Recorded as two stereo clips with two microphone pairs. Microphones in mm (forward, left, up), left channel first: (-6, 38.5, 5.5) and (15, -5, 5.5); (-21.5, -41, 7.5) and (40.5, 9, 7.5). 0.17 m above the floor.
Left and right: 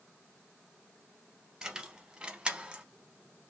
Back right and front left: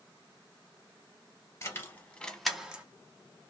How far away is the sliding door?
I don't hear a sliding door.